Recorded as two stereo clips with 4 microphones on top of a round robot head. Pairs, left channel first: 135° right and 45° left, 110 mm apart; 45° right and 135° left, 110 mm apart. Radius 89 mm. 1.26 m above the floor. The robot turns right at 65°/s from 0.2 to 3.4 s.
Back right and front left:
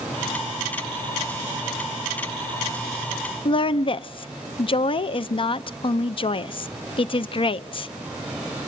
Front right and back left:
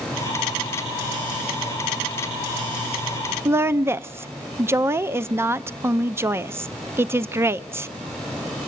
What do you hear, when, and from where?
3.5 s a woman speaking: 160° right, 0.6 m